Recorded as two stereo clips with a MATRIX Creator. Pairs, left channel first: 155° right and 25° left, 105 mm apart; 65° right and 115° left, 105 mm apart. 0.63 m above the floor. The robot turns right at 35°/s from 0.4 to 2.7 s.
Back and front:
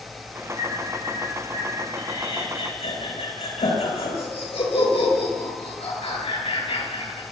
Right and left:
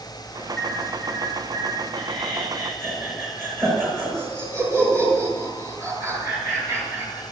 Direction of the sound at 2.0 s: 150° left.